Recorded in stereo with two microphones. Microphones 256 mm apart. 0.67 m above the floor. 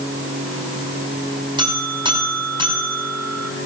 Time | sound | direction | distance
1.6 | a buzzer | 15° right (ahead or behind) | 5.5 m